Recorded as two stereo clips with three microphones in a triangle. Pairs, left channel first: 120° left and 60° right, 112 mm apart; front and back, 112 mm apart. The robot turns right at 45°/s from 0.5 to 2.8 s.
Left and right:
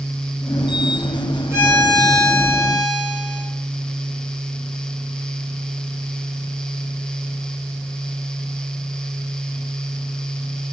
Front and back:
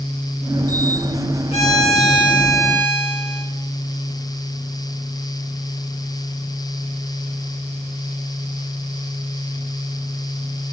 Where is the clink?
I don't hear a clink.